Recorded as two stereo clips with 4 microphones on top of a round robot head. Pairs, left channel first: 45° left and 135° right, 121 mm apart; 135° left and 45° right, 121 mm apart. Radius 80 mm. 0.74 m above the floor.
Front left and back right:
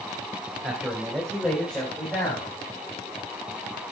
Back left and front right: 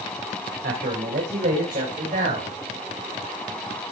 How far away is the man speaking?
About 3 m.